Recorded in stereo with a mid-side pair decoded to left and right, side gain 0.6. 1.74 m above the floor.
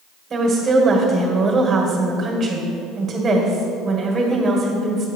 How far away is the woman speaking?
About 1.7 m.